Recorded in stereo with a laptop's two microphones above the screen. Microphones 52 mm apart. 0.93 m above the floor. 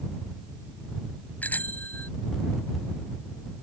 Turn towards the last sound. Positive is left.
turn(degrees=35)  # may be behind; listen again after turning